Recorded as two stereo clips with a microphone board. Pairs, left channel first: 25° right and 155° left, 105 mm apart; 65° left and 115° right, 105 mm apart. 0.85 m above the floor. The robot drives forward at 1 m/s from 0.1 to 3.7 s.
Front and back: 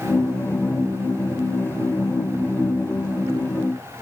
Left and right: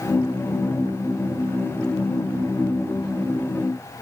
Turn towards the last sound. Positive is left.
No sound to turn to.